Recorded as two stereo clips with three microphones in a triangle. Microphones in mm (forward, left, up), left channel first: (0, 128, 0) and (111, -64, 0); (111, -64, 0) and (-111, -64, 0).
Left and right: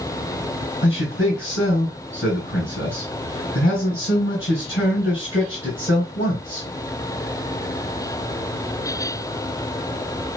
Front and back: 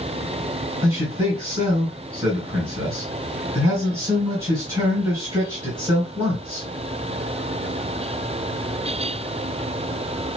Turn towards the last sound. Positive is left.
turn(degrees=110)